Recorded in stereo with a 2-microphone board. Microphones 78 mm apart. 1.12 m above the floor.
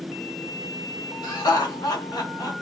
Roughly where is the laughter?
Left.